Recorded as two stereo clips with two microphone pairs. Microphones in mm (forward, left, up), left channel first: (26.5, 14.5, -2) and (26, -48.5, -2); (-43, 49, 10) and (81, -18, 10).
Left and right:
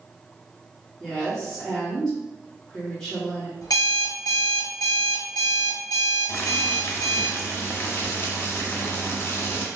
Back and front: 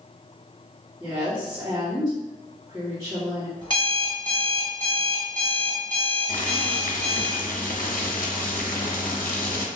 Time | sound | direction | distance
1.0 | a woman speaking | 15° left | 1.4 m
3.6 | an alarm clock | 95° left | 1.0 m
6.3 | boiling | 140° left | 0.6 m